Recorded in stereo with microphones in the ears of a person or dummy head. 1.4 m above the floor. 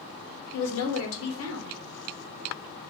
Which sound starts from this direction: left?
A woman speaking, at 0.5 s.